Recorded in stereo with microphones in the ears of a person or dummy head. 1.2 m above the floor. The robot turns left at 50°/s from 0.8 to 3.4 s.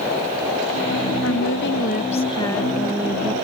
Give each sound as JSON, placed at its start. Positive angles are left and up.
{"t": 1.2, "sound": "a woman speaking", "azimuth_deg": 85}